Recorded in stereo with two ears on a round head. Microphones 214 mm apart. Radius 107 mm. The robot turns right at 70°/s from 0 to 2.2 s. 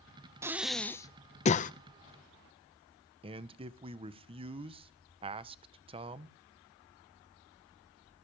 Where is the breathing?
10° right (ahead or behind), 0.5 m; by 1.7 s 35° left (ahead or behind), 0.5 m.